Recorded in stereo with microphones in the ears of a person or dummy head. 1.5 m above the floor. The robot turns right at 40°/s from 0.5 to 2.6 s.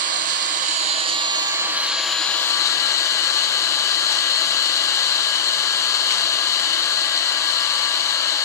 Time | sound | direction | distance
0.0 | an engine running | 65° right | 0.8 m